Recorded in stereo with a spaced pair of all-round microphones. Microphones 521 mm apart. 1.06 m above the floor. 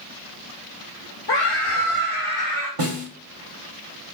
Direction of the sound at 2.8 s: 75° right (ahead or behind).